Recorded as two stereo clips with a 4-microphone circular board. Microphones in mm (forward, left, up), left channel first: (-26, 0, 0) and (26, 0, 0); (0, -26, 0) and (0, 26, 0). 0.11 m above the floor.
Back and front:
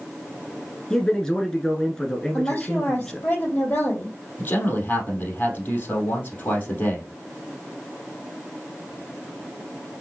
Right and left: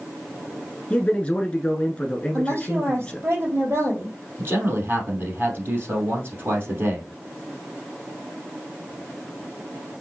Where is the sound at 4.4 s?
130° left, 3 m.